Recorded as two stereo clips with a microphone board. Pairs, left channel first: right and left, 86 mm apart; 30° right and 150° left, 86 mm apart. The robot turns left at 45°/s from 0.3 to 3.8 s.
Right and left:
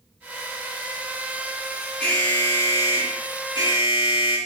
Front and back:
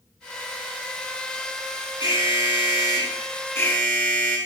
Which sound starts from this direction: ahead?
An alarm, at 2.0 s.